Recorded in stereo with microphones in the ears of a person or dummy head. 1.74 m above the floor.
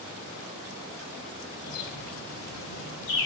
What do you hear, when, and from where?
1.6 s a bird: 60° left (ahead or behind), 3 m